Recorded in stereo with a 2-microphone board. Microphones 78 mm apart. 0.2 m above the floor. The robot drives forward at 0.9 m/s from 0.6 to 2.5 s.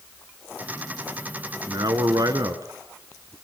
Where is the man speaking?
60° right (ahead or behind), 2.5 m; by 3.4 s 55° right (ahead or behind), 2.5 m.